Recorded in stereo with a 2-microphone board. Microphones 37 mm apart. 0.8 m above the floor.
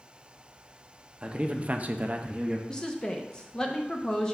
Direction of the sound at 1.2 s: 30° right (ahead or behind).